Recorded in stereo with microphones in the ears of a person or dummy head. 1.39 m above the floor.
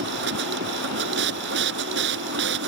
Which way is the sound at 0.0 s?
70° right (ahead or behind).